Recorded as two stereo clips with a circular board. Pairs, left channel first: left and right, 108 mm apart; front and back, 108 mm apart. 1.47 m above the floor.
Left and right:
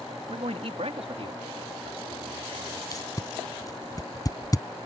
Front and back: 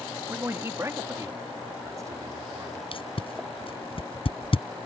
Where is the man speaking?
115° right; by 2.8 s 125° right.